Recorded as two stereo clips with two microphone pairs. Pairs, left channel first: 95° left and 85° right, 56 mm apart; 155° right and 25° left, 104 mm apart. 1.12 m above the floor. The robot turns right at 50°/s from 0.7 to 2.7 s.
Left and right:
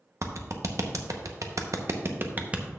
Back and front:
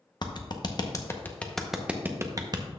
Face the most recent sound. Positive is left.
turn(degrees=-10)